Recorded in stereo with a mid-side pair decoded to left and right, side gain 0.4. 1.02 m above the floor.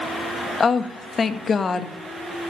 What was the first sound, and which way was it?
A woman speaking, 45° left.